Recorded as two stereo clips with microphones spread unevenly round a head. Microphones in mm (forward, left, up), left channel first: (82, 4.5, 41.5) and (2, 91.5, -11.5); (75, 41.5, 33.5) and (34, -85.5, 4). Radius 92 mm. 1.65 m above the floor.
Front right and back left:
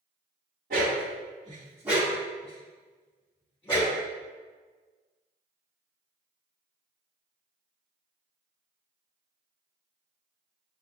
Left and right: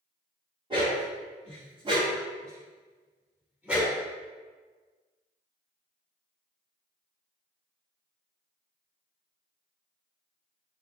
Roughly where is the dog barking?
Behind.